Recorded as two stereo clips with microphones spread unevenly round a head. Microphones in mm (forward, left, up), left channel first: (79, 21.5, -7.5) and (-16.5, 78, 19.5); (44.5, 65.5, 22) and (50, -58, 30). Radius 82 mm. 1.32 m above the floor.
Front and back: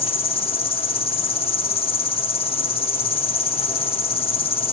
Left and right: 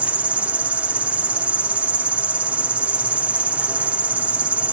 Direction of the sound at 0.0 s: 5° right.